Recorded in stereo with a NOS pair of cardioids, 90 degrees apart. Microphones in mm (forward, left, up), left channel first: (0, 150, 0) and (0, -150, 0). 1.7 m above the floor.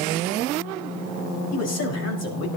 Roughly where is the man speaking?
Ahead left.